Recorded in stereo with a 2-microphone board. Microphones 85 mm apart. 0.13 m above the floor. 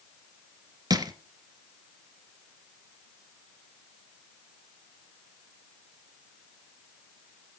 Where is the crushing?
50° right (ahead or behind), 1.5 m.